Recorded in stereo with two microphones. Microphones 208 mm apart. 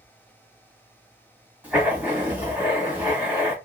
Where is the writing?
10° right (ahead or behind), 1.4 m.